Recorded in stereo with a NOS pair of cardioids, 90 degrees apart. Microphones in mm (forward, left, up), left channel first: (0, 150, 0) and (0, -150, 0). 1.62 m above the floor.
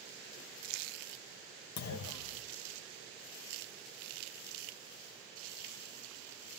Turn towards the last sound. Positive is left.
turn(degrees=60)